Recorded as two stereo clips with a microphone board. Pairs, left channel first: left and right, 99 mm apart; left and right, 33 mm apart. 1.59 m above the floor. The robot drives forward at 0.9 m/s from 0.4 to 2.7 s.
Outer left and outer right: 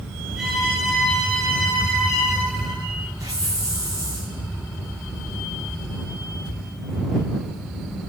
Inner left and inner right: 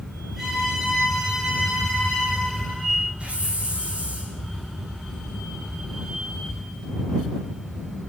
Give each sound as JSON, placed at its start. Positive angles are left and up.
{"t": 0.4, "sound": "a violin", "side_deg": -5, "distance_m": 9.5}
{"t": 3.2, "sound": "a hiss", "side_deg": -35, "distance_m": 7.5}